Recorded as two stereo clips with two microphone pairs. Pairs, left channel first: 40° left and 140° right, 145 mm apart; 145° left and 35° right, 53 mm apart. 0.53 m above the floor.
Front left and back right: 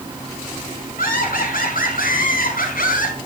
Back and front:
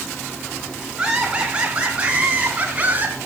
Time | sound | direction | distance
1.0 | laughter | 40° left | 5.5 m